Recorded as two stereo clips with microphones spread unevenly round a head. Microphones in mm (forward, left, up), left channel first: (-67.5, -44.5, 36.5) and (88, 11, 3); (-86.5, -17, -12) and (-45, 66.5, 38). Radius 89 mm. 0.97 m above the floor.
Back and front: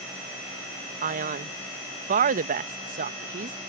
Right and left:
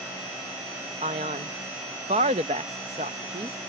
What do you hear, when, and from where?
1.0 s a man speaking: 5° left